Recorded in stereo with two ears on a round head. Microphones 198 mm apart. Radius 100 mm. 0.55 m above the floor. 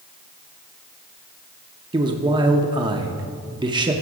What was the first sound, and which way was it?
A man speaking, 20° right (ahead or behind).